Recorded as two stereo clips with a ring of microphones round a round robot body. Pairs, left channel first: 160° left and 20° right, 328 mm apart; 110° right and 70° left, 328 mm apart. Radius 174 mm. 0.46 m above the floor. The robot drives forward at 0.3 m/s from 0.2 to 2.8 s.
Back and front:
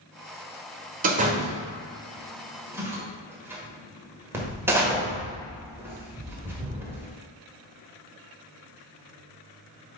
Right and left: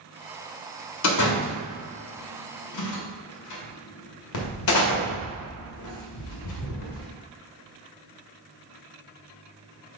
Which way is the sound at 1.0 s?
85° right.